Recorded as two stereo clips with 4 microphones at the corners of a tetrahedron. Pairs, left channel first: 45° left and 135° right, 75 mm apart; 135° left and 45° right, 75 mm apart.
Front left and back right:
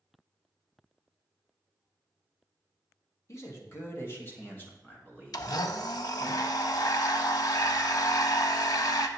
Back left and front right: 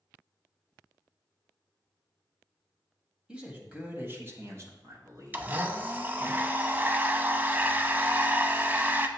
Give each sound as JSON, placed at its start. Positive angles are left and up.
{"t": 3.3, "sound": "a man speaking", "azimuth_deg": 25, "distance_m": 1.3}
{"t": 5.3, "sound": "a blender", "azimuth_deg": 20, "distance_m": 0.5}